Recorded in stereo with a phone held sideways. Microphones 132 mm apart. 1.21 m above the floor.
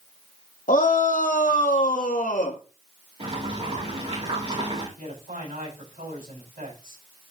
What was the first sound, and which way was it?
A shout, 90° left.